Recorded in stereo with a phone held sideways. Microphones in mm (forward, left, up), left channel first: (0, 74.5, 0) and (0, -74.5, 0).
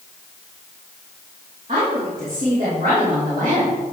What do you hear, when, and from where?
1.7 s a woman speaking: 50° right (ahead or behind), 2.5 m; by 3.9 s 55° right (ahead or behind), 3.5 m